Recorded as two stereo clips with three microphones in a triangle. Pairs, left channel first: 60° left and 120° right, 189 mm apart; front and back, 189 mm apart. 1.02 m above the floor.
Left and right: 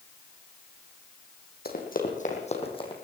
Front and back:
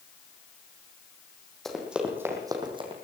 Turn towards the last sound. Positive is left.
turn(degrees=120)